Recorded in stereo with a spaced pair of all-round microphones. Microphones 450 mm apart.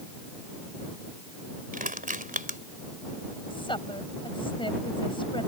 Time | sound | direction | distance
1.7 | crushing | 20° right (ahead or behind) | ?
3.5 | a woman speaking | 10° left (ahead or behind) | ?